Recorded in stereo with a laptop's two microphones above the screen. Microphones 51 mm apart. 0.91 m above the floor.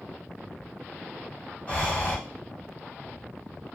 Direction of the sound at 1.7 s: 25° left (ahead or behind).